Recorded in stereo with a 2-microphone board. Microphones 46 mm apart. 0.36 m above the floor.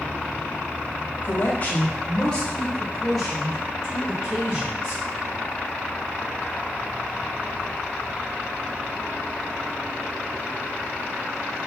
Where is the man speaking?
40° left (ahead or behind), 1.2 m; by 5.0 s 20° right (ahead or behind), 1.9 m.